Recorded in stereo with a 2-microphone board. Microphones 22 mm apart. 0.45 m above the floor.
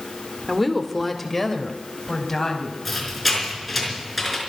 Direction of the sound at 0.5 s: 5° right (ahead or behind).